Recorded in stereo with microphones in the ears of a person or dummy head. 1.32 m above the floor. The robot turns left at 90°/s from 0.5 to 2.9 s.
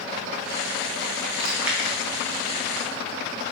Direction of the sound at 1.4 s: 30° right (ahead or behind).